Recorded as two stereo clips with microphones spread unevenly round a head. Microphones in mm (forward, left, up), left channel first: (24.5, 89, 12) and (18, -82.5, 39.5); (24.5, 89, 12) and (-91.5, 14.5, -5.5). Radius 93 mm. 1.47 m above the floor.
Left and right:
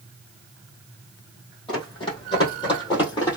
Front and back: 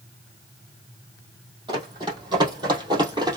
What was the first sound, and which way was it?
Running footsteps, 155° left.